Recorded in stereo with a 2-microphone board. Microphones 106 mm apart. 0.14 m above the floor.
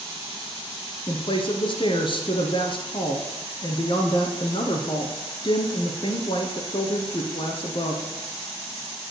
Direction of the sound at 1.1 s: 50° left (ahead or behind).